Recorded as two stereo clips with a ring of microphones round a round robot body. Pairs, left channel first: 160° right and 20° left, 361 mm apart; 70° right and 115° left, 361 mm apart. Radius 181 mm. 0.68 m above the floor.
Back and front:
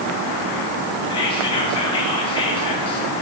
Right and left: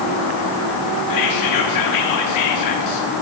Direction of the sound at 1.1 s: 85° right.